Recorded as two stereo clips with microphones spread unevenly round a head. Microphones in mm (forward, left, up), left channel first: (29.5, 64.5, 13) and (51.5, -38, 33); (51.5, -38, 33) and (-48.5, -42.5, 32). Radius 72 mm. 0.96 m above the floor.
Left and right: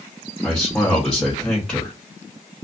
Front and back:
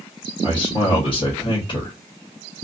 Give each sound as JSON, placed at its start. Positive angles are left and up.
{"t": 0.4, "sound": "a man speaking", "azimuth_deg": 25, "distance_m": 1.1}